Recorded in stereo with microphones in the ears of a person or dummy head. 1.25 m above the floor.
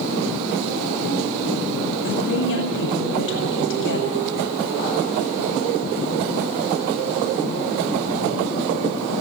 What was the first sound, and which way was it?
A woman speaking, 65° left (ahead or behind).